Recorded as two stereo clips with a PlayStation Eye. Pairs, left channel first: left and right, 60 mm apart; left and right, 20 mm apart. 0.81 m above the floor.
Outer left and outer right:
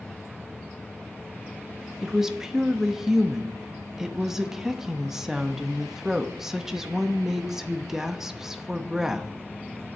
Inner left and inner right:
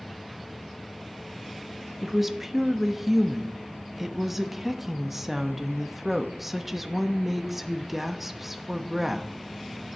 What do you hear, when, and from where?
2.0 s a woman speaking: 10° right (ahead or behind), 0.9 m